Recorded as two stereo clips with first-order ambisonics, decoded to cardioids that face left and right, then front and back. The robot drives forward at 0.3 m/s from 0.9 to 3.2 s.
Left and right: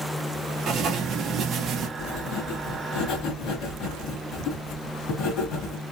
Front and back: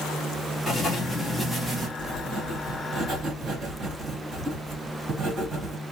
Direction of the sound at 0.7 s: 60° right.